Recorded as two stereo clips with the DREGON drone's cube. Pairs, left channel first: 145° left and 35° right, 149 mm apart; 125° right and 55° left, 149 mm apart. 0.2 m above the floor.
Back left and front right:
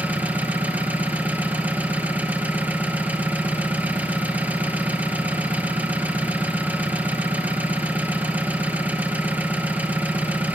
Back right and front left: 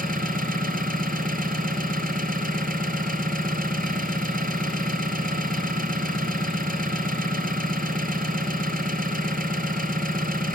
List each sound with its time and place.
0.0 s an engine running: 45° left, 2.5 m